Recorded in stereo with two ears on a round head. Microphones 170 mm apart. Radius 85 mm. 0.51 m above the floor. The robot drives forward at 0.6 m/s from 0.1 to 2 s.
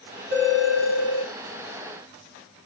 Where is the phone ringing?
65° right (ahead or behind), 5.5 m; by 1.3 s 70° right (ahead or behind), 5 m.